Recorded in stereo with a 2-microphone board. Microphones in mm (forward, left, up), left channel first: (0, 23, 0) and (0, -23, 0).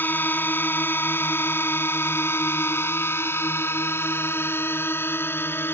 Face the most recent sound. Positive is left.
turn(degrees=65)  # may be behind; listen again after turning